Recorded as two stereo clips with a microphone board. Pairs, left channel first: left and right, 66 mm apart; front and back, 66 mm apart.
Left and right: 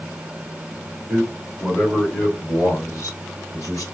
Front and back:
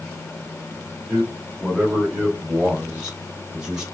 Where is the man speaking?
120° right, 1.3 m; by 3.8 s 105° left, 2.5 m.